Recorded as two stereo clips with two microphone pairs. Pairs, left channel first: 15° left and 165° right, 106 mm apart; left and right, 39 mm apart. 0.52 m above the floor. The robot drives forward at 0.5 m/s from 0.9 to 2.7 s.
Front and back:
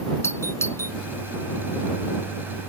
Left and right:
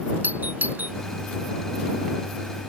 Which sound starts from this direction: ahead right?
A doorbell, at 0.2 s.